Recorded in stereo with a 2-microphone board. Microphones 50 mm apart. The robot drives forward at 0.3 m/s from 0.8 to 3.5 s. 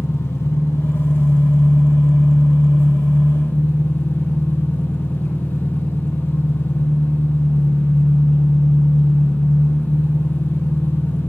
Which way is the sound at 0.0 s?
70° left (ahead or behind).